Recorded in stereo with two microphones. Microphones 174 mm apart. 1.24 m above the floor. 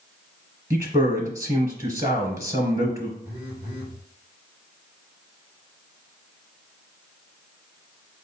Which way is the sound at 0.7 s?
20° right (ahead or behind).